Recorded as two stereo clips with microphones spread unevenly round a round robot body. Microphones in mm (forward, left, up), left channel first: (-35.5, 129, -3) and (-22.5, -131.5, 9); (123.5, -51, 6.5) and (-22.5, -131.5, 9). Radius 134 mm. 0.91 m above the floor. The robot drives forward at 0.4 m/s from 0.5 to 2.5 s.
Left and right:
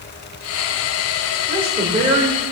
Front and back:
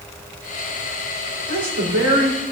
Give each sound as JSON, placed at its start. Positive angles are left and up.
{"t": 1.5, "sound": "a woman speaking", "azimuth_deg": -160, "distance_m": 3.5}